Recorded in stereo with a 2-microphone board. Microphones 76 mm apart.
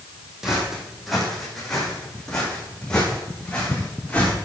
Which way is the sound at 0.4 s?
5° right (ahead or behind).